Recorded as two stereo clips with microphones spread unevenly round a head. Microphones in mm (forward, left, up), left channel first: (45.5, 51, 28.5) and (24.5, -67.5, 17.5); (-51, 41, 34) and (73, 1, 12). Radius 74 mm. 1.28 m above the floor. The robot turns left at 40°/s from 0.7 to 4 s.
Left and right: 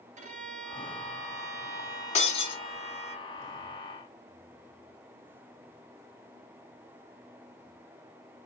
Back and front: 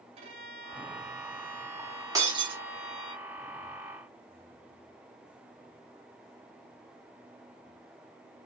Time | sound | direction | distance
0.2 | a violin | 70° right | 2.5 m
2.1 | breaking glass | 50° left | 2.5 m